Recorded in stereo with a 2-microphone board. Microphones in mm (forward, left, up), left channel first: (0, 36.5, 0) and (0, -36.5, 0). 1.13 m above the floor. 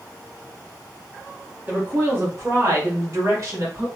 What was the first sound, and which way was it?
A woman speaking, 25° right (ahead or behind).